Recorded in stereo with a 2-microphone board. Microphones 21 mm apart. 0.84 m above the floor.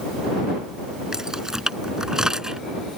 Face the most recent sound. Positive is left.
turn(degrees=-35)  # may be behind; listen again after turning